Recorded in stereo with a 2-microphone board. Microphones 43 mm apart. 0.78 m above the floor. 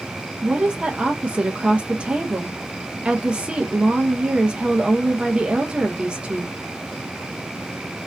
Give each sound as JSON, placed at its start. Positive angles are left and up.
{"t": 0.4, "sound": "a woman speaking", "side_deg": -25, "distance_m": 0.5}